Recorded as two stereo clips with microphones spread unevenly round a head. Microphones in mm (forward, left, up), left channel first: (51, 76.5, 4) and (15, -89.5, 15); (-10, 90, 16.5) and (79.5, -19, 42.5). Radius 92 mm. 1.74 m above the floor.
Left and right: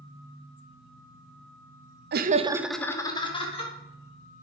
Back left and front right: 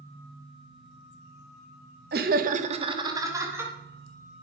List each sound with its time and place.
2.1 s laughter: 80° right, 0.7 m; by 3.7 s 20° left, 1.7 m